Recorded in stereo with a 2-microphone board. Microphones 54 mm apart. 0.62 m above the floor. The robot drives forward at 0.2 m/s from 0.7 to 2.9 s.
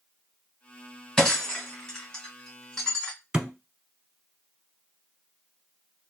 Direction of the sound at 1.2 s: 20° left (ahead or behind).